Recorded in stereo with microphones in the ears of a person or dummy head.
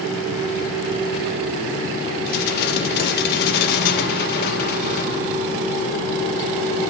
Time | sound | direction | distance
2.3 | dishes clattering | 60° left (ahead or behind) | 1.2 m